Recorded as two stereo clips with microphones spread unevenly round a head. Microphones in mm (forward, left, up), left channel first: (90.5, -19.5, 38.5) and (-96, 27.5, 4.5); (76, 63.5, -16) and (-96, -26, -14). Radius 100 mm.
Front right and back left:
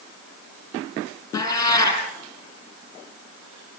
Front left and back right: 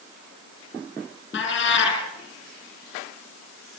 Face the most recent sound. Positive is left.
turn(degrees=55)